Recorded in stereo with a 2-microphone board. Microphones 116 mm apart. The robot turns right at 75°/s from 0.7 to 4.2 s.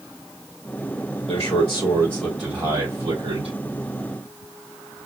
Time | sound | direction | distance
1.3 | a man speaking | 100° left | 4 m